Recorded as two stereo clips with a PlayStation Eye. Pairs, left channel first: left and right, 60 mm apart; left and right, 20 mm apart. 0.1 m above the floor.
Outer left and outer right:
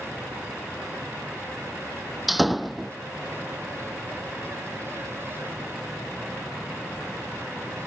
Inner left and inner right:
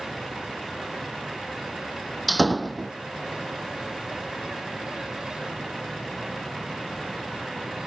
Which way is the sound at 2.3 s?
Centre (ahead or behind).